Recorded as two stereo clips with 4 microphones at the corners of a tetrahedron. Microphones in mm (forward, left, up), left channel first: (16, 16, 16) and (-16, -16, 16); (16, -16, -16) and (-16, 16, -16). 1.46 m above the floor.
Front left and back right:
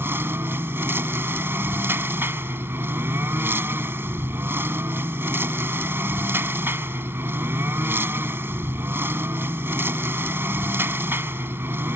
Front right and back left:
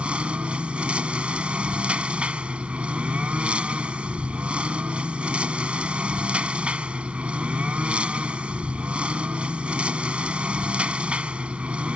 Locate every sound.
0.0 s a lawn mower: 160° right